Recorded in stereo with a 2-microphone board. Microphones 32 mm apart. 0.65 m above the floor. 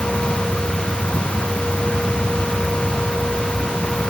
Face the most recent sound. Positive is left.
No sound to turn to.